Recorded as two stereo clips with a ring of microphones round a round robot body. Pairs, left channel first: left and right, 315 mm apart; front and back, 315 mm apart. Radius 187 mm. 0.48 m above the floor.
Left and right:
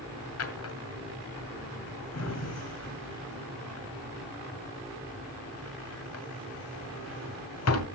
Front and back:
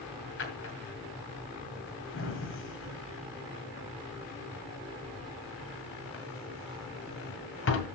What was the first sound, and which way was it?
A drawer, 50° left.